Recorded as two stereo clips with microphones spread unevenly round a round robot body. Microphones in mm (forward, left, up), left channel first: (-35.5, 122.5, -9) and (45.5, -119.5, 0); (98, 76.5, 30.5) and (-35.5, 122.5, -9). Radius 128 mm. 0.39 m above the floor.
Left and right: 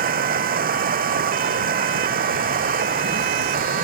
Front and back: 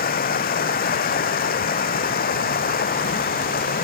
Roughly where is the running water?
Ahead.